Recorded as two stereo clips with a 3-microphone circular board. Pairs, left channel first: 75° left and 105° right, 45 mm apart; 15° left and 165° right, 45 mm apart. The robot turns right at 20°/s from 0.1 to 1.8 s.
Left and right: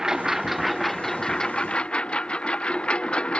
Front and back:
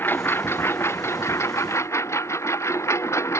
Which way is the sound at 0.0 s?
25° right.